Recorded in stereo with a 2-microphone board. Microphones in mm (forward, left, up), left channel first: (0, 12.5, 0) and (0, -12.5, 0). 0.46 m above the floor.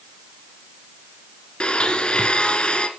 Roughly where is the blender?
Left.